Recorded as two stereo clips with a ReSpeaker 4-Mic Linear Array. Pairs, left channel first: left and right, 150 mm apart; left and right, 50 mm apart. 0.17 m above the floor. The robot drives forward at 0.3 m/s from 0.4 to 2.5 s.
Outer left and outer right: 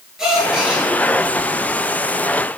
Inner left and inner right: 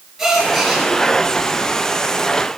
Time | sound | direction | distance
0.2 | a gasp | 5° right (ahead or behind) | 3 m